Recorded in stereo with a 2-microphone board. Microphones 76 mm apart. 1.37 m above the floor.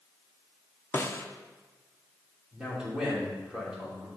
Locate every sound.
0.9 s a snare drum: 30° left (ahead or behind), 0.6 m
2.5 s a man speaking: 10° right (ahead or behind), 3 m